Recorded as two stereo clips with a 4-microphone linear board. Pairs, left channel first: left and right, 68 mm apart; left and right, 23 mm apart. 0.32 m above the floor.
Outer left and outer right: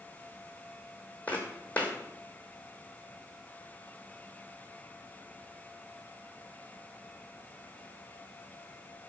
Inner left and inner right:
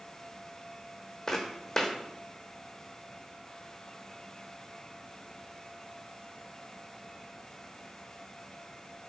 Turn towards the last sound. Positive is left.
turn(degrees=25)  # may be behind; listen again after turning